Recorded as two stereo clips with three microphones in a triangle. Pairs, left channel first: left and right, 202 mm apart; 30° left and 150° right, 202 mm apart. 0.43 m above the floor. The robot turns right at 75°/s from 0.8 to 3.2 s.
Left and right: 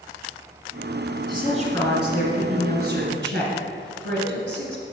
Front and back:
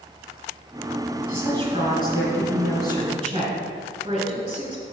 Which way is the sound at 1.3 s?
130° left.